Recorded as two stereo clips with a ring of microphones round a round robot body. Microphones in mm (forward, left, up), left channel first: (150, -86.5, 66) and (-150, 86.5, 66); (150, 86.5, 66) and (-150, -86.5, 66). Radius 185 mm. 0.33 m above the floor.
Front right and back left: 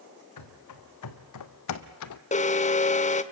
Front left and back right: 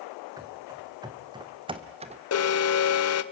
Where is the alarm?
30° left, 1.0 m.